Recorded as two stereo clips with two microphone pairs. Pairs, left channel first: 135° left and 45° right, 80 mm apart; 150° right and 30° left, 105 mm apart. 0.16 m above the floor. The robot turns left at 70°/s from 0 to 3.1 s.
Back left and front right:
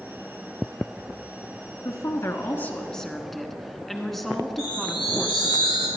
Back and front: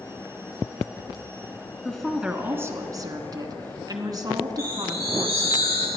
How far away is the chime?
About 2.5 m.